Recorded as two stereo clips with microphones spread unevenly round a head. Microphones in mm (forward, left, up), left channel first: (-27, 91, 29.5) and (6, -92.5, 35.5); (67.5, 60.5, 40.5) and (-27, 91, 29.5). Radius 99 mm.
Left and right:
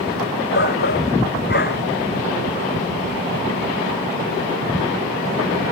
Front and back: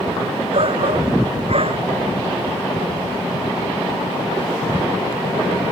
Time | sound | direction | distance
0.5 | a shout | 135° left | ?